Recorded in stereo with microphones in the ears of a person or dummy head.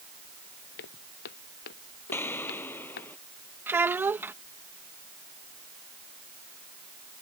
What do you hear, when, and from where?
0.8 s footsteps: 60° left (ahead or behind)
2.1 s an explosion: 15° left (ahead or behind)
3.7 s a child speaking: 5° right (ahead or behind)